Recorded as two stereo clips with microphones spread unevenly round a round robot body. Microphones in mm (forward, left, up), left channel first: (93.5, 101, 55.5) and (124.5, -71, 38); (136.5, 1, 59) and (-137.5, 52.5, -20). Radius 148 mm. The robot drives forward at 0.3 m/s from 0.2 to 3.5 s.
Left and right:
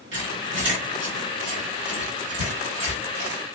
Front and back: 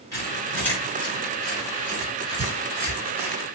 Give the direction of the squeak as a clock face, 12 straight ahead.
3 o'clock.